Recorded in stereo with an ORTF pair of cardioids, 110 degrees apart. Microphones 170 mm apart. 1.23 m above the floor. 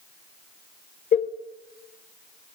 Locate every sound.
1.1 s a cowbell: 45° left, 0.8 m